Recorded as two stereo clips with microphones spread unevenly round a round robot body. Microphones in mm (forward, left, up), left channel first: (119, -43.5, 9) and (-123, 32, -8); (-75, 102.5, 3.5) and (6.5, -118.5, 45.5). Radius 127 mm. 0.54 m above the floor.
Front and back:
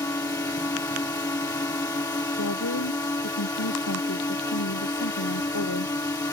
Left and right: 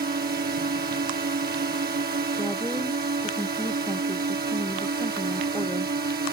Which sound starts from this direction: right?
A drone, at 0.0 s.